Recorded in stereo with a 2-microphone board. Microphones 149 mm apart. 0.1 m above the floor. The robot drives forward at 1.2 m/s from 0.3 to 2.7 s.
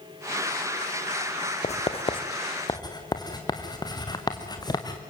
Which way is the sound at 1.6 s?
50° left (ahead or behind).